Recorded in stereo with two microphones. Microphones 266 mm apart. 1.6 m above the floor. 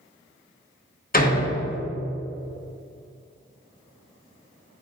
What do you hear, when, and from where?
1.1 s a door slam: 35° left (ahead or behind), 1.0 m